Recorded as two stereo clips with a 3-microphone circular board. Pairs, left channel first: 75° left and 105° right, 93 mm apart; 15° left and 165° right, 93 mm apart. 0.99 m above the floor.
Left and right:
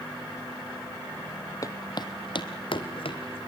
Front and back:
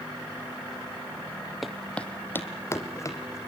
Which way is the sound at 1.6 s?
105° left.